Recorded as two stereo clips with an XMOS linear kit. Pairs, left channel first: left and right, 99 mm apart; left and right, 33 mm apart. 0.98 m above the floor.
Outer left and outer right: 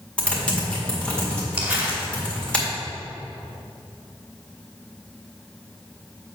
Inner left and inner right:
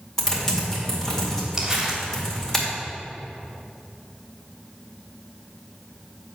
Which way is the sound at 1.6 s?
15° right (ahead or behind).